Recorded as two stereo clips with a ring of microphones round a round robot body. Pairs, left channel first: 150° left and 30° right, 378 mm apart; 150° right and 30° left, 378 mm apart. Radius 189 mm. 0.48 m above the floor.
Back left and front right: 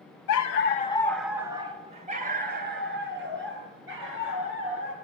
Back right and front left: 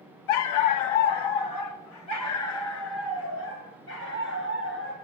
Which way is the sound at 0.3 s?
170° right.